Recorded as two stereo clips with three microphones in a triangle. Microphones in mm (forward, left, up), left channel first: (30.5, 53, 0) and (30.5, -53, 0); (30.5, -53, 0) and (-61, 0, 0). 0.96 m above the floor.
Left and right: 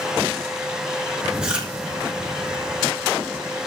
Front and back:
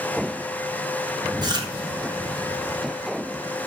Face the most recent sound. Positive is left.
turn(degrees=-170)